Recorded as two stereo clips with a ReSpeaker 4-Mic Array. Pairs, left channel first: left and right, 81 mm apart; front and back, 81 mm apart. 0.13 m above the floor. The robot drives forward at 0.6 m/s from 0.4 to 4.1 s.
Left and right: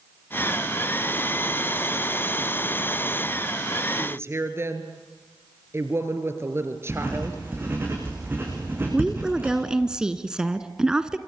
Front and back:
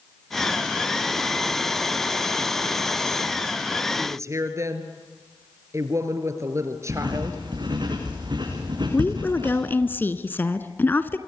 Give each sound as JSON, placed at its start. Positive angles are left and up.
{"t": 4.0, "sound": "a woman speaking", "azimuth_deg": -135, "distance_m": 2.5}
{"t": 6.9, "sound": "writing", "azimuth_deg": -155, "distance_m": 8.0}
{"t": 8.9, "sound": "a woman speaking", "azimuth_deg": -20, "distance_m": 1.1}